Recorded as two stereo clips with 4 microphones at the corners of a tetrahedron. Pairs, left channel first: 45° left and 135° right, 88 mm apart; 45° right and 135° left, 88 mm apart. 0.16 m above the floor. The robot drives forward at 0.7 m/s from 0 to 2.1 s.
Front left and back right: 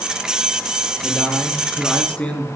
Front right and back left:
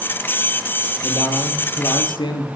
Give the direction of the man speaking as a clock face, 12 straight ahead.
1 o'clock.